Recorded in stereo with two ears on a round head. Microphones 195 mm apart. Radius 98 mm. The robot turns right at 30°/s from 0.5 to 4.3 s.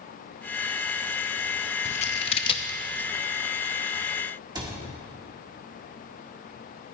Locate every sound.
1.9 s scissors: 35° left (ahead or behind), 0.8 m; by 2.8 s 20° left (ahead or behind), 0.8 m
4.5 s a cupboard door: 20° right (ahead or behind), 1.9 m